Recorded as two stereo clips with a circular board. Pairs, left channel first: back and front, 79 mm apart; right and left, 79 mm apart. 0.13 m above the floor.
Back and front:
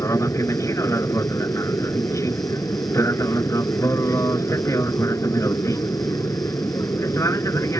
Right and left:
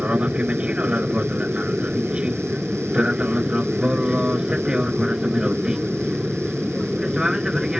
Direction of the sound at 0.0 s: 155° left.